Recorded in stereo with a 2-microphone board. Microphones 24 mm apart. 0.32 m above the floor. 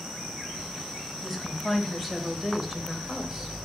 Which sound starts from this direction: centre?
A woman speaking, at 1.2 s.